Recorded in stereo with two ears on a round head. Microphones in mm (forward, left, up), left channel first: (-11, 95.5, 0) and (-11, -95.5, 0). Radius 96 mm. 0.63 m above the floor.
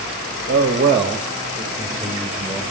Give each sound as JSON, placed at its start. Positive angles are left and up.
{"t": 0.5, "sound": "a man speaking", "side_deg": -35, "distance_m": 0.7}